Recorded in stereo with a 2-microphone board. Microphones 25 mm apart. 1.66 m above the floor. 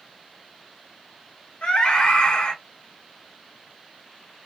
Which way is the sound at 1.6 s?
65° left (ahead or behind).